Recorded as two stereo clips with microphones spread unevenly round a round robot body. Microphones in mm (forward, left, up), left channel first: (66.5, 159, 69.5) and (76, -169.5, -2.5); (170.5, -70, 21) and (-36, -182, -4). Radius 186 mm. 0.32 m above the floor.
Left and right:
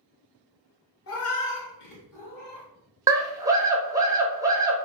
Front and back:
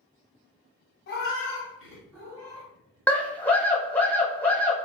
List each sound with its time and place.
1.1 s a cat meowing: 50° left, 0.7 m; by 2.7 s 140° left, 1.1 m
3.1 s a scream: 60° right, 0.9 m